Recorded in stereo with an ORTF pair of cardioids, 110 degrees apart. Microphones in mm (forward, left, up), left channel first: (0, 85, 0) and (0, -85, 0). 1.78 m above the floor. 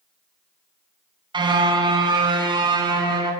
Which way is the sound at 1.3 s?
25° right.